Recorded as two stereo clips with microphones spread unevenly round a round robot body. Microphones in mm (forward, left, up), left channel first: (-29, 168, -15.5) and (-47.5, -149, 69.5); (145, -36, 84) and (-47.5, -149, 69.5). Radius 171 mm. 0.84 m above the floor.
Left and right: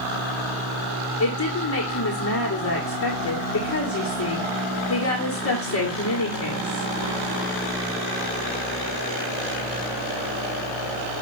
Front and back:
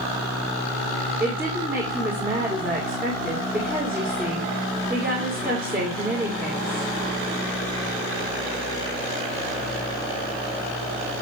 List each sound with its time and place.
1.2 s a woman speaking: 130° left, 1.8 m